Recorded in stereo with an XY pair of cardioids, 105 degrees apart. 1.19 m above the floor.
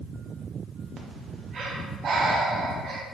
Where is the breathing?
55° right, 0.7 m.